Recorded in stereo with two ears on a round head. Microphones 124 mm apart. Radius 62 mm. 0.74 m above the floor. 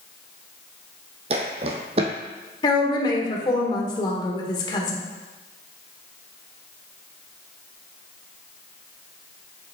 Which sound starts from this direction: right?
Footsteps, at 1.3 s.